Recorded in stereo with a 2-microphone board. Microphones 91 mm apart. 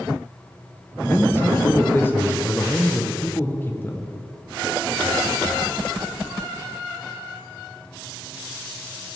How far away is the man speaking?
About 1.0 m.